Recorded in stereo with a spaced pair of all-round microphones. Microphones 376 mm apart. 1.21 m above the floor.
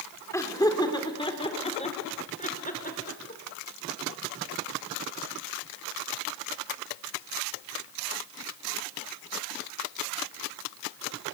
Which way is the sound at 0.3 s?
10° left (ahead or behind).